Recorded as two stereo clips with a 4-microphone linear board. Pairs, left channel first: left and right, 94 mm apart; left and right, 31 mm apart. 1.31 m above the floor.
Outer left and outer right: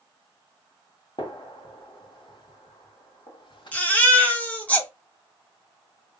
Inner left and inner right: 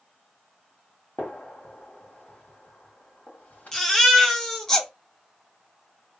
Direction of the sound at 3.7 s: 15° left (ahead or behind).